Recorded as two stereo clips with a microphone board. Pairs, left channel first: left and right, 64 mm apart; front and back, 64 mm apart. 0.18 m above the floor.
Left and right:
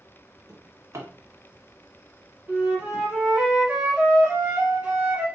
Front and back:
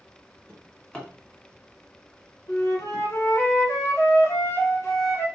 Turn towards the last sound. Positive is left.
turn(degrees=-25)